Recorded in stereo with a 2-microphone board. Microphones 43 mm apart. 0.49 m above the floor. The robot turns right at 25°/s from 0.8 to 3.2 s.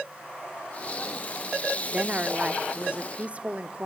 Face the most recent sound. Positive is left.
turn(degrees=-100)